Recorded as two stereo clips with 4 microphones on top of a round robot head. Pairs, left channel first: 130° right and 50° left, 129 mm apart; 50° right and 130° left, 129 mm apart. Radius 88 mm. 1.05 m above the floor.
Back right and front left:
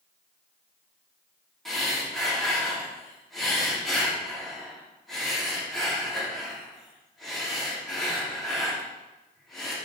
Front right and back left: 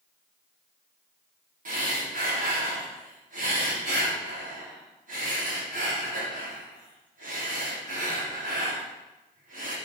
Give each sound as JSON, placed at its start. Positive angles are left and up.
{"t": 1.6, "sound": "breathing", "azimuth_deg": 145, "distance_m": 3.0}